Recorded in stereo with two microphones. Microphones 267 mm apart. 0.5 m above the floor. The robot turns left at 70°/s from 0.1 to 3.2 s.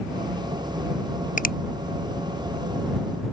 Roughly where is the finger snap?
Left.